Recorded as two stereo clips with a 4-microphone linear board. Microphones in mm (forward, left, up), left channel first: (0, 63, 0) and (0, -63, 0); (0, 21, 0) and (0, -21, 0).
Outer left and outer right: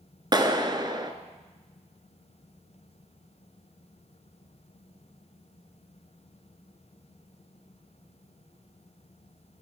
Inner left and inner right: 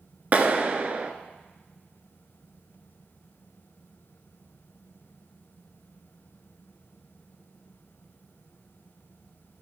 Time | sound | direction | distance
0.3 | a clap | 35° right (ahead or behind) | 1.1 m